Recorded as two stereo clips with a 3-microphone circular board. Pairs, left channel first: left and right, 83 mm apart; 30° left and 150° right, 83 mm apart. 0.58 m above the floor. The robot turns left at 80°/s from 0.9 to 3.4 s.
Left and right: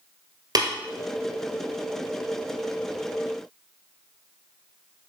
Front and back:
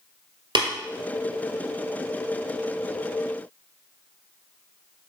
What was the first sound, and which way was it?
Tapping, 130° right.